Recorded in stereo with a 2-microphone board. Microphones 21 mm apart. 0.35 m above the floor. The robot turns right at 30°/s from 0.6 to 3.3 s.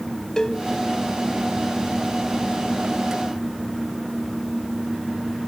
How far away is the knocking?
No knocking in this recording.